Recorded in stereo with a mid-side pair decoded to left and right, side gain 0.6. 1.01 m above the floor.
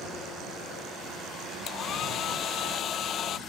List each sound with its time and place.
1.7 s a hair dryer: 50° left